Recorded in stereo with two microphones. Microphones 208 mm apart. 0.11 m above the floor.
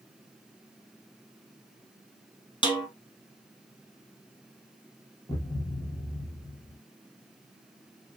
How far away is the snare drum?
About 0.8 m.